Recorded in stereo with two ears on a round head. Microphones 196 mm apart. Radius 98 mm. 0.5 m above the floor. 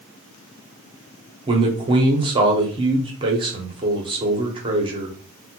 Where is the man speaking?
25° right (ahead or behind), 0.7 m.